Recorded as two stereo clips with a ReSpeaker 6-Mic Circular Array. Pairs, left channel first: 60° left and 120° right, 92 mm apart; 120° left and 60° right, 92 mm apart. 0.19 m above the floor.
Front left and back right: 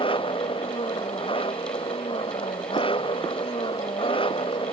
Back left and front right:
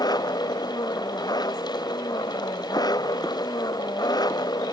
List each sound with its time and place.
0.0 s an engine running: 75° left